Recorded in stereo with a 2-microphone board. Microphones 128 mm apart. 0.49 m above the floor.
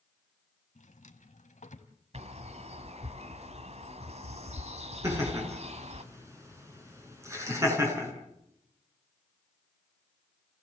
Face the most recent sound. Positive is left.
turn(degrees=-20)  # may be behind; listen again after turning